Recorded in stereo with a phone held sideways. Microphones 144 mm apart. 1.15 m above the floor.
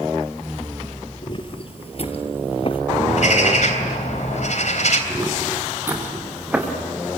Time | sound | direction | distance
1.2 | footsteps | 35° left (ahead or behind) | 1.7 m
3.1 | a bird | 60° left (ahead or behind) | 3 m
5.1 | footsteps | 20° right (ahead or behind) | 4.5 m